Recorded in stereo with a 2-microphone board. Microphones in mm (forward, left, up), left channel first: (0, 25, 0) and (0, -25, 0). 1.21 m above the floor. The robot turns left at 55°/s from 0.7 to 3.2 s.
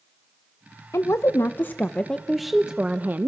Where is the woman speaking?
80° left, 0.9 m; by 3.3 s 45° right, 0.9 m.